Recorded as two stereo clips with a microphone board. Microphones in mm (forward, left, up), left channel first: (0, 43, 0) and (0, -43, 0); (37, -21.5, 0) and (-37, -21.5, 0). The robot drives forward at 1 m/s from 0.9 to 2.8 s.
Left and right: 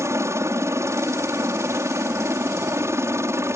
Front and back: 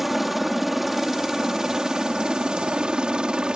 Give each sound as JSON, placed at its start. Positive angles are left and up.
{"t": 0.0, "sound": "a helicopter", "azimuth_deg": -95}